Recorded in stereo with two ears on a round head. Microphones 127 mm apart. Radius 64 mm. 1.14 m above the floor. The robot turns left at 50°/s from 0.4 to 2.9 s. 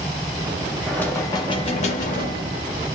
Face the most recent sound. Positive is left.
turn(degrees=75)